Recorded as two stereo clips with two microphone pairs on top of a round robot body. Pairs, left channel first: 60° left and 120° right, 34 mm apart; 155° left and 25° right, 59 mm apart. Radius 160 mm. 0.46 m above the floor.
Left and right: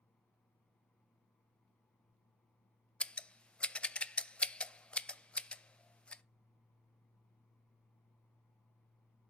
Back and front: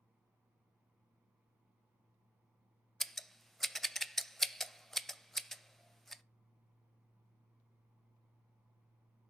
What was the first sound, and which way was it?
Scissors, 90° left.